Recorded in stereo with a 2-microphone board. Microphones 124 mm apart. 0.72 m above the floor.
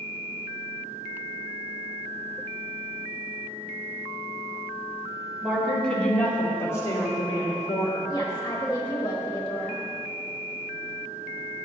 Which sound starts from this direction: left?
A woman speaking, at 8.1 s.